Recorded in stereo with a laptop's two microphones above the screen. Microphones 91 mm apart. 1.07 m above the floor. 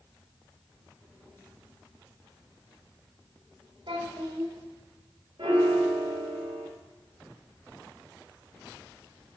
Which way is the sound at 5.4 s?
75° right (ahead or behind).